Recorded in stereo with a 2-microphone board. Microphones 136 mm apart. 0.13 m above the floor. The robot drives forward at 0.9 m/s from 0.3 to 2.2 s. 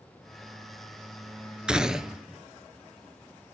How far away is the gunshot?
About 0.6 m.